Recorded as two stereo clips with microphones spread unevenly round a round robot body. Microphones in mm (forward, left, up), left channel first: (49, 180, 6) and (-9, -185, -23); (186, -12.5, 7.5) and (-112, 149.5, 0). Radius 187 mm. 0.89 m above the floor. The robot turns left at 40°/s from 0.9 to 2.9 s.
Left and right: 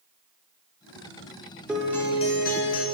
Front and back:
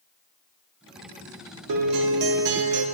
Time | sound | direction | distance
1.7 | a guitar | 170° left | 0.6 m